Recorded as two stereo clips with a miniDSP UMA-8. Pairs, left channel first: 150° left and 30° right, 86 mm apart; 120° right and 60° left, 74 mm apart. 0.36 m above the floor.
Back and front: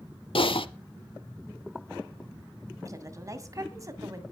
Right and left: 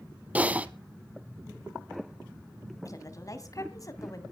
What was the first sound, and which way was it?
Typing on a keyboard, 135° left.